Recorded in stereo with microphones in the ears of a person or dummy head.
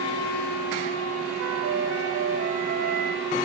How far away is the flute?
About 3 m.